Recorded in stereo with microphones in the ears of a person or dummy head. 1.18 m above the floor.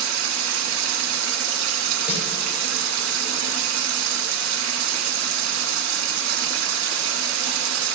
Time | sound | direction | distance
0.0 | running water | 75° right (ahead or behind) | 1.5 m
2.1 | a snare drum | 50° left (ahead or behind) | 4.5 m